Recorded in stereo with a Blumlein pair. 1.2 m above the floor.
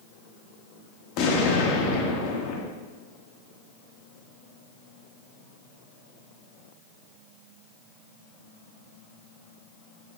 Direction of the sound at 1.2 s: 40° left.